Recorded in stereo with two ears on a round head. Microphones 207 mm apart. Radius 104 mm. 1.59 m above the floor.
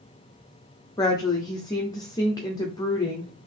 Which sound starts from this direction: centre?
A woman speaking, at 1.0 s.